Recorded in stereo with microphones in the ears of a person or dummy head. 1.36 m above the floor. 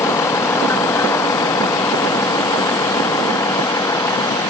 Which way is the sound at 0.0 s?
20° left (ahead or behind).